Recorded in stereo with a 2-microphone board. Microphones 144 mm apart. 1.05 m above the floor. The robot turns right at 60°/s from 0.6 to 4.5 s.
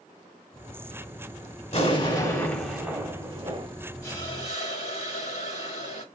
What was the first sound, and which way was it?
An explosion, 120° left.